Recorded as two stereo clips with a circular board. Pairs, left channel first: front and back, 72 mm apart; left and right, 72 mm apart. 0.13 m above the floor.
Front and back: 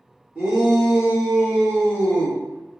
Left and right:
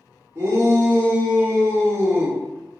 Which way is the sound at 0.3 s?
125° right.